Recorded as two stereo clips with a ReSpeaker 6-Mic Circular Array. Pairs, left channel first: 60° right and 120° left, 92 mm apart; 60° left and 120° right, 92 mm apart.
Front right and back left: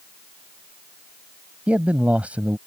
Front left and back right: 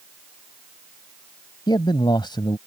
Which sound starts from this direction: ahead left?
A man speaking, at 1.7 s.